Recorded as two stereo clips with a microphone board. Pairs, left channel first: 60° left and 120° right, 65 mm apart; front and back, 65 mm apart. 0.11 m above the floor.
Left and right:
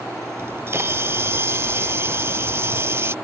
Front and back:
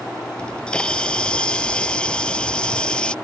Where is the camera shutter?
75° right.